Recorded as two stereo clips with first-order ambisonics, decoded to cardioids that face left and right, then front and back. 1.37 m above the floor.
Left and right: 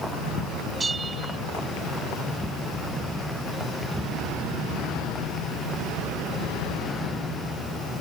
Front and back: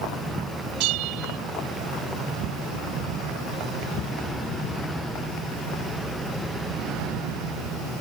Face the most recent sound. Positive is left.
turn(degrees=-165)